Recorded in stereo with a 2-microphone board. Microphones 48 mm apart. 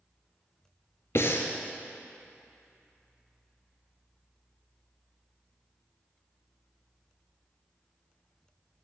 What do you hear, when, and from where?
1.1 s breathing: 60° left (ahead or behind), 0.7 m